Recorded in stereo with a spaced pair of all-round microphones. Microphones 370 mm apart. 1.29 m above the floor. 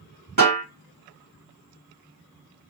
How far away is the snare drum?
About 1.5 m.